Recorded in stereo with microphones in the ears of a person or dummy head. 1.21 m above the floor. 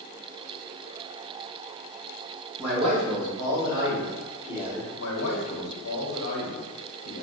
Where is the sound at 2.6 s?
35° right (ahead or behind), 1.3 m; by 4.9 s 5° right (ahead or behind), 2 m.